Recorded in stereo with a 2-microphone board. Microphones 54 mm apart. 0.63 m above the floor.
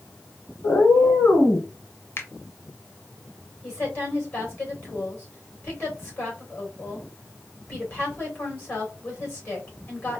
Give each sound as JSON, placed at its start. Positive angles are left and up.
{"t": 0.6, "sound": "a cat meowing", "side_deg": 50, "distance_m": 3.0}
{"t": 2.2, "sound": "a finger snap", "side_deg": 45, "distance_m": 0.8}
{"t": 3.6, "sound": "a woman speaking", "side_deg": 35, "distance_m": 3.0}